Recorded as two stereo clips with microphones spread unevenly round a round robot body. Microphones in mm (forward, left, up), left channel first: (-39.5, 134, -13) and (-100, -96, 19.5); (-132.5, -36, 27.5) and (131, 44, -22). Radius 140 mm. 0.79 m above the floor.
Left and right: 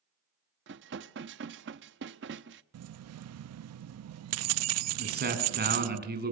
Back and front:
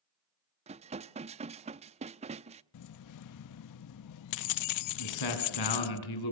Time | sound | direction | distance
0.7 | dishes clattering | 50° right | 0.6 m
2.7 | keys jangling | 130° right | 0.5 m
5.0 | a man speaking | 155° right | 6.5 m